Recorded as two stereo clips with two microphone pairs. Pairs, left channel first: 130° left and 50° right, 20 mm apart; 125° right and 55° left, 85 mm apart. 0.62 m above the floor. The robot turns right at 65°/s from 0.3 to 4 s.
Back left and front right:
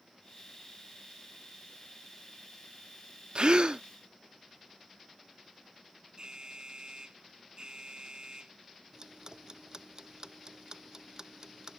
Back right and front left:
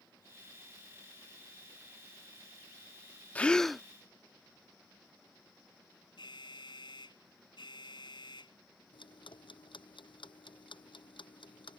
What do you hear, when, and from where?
3.4 s a gasp: 60° right; by 3.8 s 30° right
6.2 s an alarm: 100° right
8.9 s ticking: 110° right